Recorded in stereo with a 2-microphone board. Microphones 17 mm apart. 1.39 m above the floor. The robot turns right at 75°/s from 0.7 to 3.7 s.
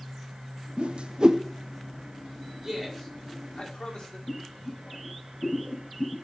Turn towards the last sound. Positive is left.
turn(degrees=80)